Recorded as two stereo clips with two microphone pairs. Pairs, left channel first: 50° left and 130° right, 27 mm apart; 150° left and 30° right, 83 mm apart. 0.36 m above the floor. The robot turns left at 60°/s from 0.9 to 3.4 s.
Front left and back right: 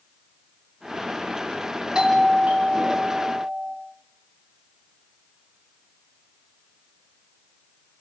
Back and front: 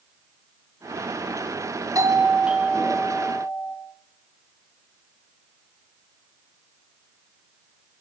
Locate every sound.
1.9 s a doorbell: 70° right, 3 m; by 3.8 s 160° right, 3 m